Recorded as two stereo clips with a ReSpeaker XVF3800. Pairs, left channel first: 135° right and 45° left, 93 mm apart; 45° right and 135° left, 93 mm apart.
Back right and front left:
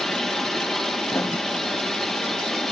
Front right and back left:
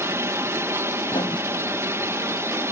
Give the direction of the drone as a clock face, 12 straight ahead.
7 o'clock.